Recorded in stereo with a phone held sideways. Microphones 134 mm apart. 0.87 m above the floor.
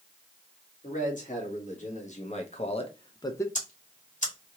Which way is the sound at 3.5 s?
60° left (ahead or behind).